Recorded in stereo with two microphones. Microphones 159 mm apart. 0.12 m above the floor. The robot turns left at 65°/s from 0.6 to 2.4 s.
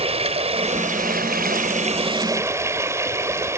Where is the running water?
45° right, 1.6 m; by 3.6 s 160° right, 1.6 m.